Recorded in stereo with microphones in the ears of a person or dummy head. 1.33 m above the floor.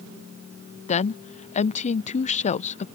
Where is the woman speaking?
35° left (ahead or behind).